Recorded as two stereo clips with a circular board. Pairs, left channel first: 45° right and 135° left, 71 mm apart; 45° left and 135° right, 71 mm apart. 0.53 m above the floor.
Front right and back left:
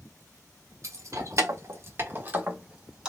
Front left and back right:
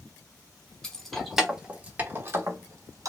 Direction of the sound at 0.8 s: 125° left.